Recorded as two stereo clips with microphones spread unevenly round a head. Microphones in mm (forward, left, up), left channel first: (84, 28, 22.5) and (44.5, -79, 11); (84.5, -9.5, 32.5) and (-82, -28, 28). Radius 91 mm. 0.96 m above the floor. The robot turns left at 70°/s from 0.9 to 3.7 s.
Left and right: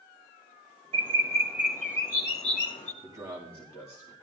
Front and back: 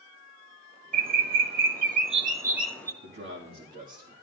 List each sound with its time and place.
0.9 s a bird: 140° right, 1.1 m; by 2.9 s 80° left, 1.1 m
3.0 s a man speaking: 170° right, 1.9 m; by 4.1 s 145° left, 1.9 m